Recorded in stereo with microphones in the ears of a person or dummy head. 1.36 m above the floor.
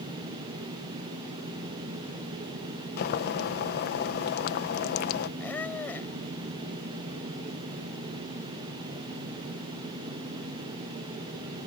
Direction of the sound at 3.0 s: 50° left (ahead or behind).